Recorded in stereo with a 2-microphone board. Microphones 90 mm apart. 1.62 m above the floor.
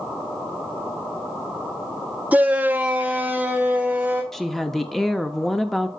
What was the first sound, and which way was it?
A shout, 15° right (ahead or behind).